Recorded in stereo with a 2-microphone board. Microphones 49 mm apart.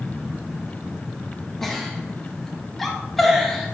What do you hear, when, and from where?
1.6 s a giggle: 5° left (ahead or behind), 1.9 m